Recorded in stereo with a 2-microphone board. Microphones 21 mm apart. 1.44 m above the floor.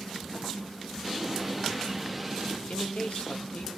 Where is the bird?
Centre (ahead or behind), 2 m.